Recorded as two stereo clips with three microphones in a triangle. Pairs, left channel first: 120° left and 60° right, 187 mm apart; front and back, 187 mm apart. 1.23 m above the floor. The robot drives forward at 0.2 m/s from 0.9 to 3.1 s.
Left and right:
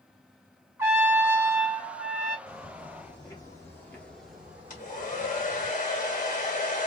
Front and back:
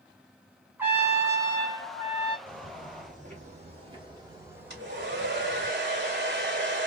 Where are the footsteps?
170° left, 1.8 m; by 5.7 s 65° right, 1.4 m.